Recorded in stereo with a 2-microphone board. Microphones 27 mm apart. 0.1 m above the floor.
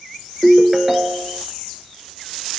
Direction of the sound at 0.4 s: 20° right (ahead or behind).